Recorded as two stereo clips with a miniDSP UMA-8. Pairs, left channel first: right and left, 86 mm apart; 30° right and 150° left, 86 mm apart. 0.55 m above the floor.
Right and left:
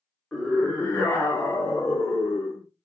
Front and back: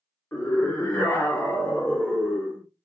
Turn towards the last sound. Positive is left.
turn(degrees=-105)